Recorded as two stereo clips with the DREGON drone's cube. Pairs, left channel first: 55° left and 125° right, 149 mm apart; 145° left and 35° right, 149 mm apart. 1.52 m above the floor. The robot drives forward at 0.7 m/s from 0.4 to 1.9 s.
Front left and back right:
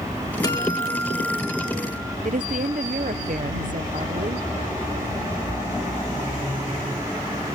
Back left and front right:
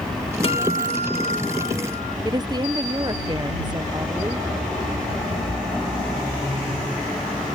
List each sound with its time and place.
0.4 s a guitar: 110° left; by 2.1 s 145° left
2.2 s a woman speaking: 95° right